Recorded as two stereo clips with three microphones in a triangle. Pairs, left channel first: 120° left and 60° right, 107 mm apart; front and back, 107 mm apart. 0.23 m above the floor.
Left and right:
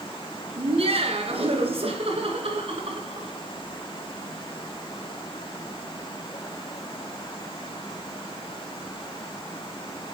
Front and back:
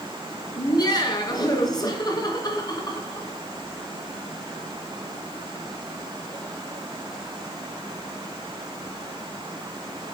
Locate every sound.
0.6 s laughter: 50° right, 2.5 m